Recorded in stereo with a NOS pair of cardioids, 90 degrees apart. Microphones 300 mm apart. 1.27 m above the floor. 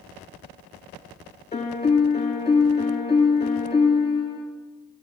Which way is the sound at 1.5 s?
20° left.